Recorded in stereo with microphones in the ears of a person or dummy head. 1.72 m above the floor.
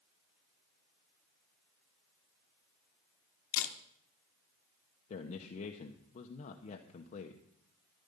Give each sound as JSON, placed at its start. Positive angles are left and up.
{"t": 3.5, "sound": "a camera shutter", "side_deg": 80, "distance_m": 1.0}
{"t": 5.1, "sound": "a man speaking", "side_deg": 40, "distance_m": 0.9}